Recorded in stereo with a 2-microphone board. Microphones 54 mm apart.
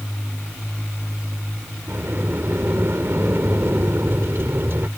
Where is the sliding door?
50° right (ahead or behind).